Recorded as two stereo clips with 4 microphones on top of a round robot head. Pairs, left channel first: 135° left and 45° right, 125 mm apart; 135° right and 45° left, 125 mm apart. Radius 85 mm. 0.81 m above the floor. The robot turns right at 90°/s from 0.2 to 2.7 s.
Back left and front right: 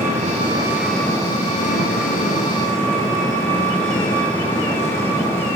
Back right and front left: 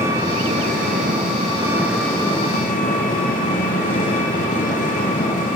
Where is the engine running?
20° right, 7 m; by 5.6 s 155° right, 7 m.